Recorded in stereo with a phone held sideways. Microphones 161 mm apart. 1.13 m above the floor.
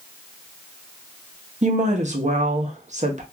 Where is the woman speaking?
50° right (ahead or behind), 0.7 m.